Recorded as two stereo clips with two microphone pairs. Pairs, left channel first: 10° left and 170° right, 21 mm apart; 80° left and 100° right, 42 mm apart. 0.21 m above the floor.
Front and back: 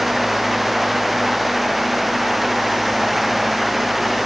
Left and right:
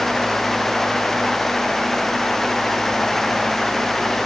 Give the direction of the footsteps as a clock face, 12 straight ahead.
I don't hear footsteps.